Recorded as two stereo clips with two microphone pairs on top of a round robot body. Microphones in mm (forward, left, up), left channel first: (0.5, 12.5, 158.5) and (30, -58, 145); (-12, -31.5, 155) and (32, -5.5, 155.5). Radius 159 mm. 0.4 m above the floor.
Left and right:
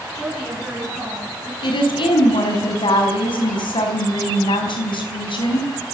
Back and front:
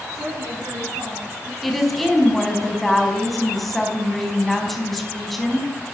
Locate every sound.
0.1 s a woman speaking: 20° left, 7.5 m; by 1.5 s 25° left, 9.5 m
1.6 s a woman speaking: 120° left, 5 m